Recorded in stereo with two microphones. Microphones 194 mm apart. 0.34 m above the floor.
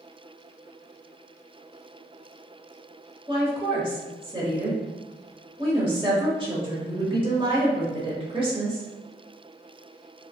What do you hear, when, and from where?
3.3 s a woman speaking: 25° right (ahead or behind), 1.1 m